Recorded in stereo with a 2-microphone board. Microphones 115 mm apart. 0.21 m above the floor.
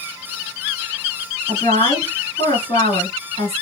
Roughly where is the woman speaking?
Left.